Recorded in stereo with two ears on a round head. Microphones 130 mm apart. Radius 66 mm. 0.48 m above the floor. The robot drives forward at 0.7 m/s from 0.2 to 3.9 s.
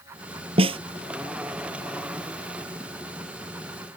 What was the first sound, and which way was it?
A snare drum, 40° right (ahead or behind).